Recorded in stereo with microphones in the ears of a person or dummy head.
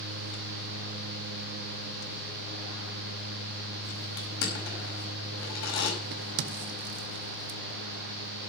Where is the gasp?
No gasp in this recording.